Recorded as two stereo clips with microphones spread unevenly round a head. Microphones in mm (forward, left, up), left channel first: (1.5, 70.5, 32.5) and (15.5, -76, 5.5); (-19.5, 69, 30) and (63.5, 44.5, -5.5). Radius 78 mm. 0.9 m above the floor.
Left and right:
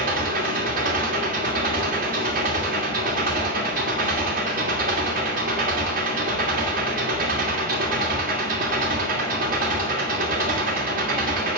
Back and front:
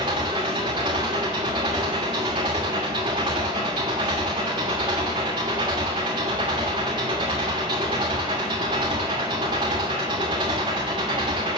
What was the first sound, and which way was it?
An engine running, 60° right.